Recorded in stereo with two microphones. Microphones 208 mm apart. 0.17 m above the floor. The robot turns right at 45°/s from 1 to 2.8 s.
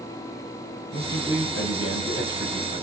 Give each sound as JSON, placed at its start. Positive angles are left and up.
{"t": 0.9, "sound": "a man speaking", "azimuth_deg": 55, "distance_m": 5.0}